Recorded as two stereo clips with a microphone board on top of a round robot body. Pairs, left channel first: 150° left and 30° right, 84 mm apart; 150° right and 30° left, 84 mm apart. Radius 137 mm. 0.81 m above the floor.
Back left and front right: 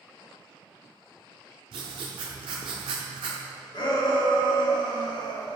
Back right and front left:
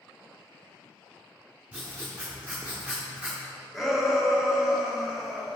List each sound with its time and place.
1.7 s writing: 45° right, 0.5 m
3.7 s a shout: 115° left, 1.7 m